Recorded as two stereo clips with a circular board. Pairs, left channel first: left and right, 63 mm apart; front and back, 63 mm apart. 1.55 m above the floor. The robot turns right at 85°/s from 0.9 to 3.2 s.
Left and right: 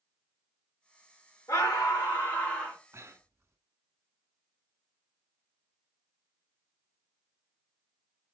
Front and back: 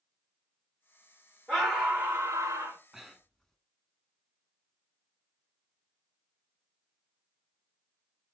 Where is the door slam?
I don't hear a door slam.